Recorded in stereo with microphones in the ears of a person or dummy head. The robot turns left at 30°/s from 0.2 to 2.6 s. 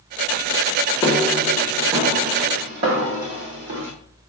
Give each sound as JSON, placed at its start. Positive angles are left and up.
{"t": 1.0, "sound": "footsteps", "side_deg": 25, "distance_m": 2.5}